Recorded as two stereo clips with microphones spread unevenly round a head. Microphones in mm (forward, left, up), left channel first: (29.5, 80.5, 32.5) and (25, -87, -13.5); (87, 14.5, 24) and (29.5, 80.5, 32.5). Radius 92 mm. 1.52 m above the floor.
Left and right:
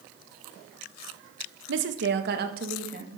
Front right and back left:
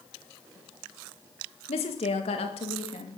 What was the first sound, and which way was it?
A woman speaking, 75° right.